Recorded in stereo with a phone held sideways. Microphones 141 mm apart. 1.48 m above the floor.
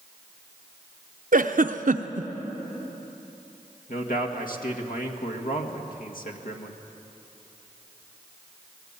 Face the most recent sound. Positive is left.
turn(degrees=75)  # may be behind; listen again after turning